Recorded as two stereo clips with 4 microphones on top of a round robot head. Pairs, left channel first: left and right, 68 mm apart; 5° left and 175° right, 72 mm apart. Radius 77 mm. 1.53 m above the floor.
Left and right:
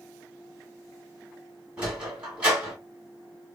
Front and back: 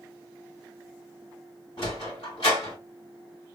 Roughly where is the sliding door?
Ahead right.